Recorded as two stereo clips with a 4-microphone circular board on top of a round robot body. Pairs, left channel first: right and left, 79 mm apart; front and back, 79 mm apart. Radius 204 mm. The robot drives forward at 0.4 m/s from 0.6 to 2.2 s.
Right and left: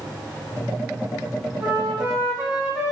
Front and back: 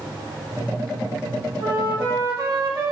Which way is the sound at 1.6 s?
155° left.